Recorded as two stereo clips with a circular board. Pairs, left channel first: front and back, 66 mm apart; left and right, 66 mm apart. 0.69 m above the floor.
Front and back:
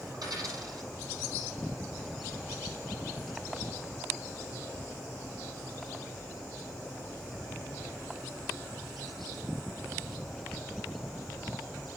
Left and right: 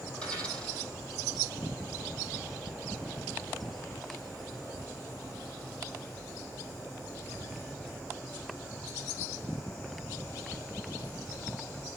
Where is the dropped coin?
165° left, 7 m.